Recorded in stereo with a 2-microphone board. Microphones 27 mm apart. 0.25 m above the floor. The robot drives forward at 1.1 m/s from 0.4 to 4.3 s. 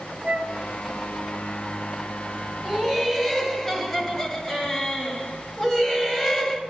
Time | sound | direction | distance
0.2 | a flute | 40° right (ahead or behind) | 0.8 m
2.6 | laughter | 10° left (ahead or behind) | 2 m